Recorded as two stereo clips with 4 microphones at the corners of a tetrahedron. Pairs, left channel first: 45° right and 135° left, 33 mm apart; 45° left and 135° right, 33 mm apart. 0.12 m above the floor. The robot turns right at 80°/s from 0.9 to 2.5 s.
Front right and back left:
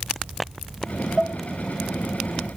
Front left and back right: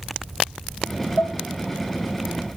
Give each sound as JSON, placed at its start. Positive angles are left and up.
{"t": 1.2, "sound": "dishes clattering", "azimuth_deg": 25, "distance_m": 3.0}